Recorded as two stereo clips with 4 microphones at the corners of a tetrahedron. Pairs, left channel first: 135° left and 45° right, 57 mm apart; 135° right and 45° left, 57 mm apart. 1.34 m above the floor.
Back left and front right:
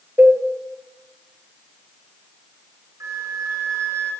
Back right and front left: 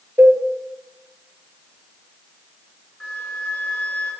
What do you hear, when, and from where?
0.2 s a cowbell: 5° left, 1.1 m
3.0 s a flute: 60° right, 3 m